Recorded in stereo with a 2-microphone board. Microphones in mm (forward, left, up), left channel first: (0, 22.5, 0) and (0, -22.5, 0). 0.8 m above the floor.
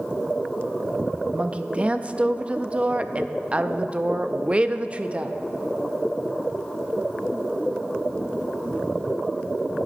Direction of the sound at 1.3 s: 30° right (ahead or behind).